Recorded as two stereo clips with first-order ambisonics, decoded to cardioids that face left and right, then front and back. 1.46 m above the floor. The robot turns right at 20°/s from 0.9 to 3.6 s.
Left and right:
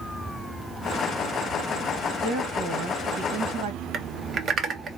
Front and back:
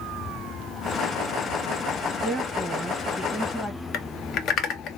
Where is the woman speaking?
110° right, 1.3 m; by 3.8 s 80° right, 1.3 m.